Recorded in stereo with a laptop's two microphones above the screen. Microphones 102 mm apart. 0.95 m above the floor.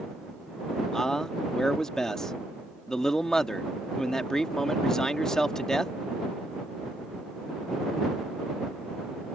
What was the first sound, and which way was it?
A man speaking, 5° left (ahead or behind).